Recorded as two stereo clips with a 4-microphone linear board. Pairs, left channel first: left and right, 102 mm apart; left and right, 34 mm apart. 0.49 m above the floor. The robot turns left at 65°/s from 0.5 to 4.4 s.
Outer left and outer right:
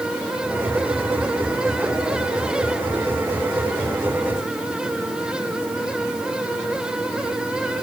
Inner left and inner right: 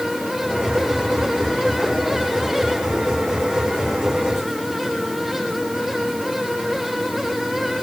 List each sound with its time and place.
Only background noise.